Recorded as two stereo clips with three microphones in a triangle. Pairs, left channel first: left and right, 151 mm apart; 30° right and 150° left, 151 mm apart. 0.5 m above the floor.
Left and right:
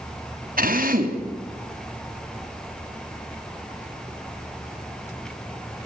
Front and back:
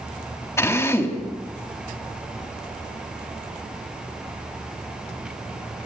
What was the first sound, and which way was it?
A drill, 100° right.